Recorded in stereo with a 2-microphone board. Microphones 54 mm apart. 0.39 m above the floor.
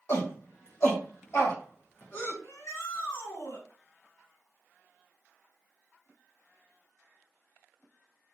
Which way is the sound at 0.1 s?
55° left (ahead or behind).